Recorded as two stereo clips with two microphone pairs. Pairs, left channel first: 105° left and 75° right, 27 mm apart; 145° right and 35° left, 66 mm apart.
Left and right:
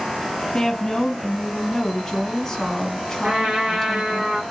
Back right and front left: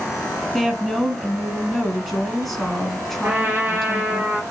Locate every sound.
0.5 s a woman speaking: 135° left, 1.2 m
3.2 s a trumpet: 25° right, 1.5 m